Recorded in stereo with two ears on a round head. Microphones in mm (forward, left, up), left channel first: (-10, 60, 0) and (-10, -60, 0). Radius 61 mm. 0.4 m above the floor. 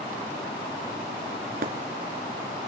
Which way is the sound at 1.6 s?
70° right (ahead or behind).